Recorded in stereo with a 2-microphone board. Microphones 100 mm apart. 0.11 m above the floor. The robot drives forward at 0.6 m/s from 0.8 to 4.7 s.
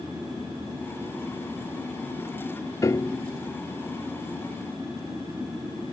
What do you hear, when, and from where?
2.8 s a piano: 35° left (ahead or behind); by 3.3 s 20° left (ahead or behind)